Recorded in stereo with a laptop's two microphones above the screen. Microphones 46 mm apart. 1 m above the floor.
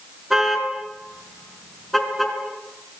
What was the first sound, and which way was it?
A car horn, 5° right (ahead or behind).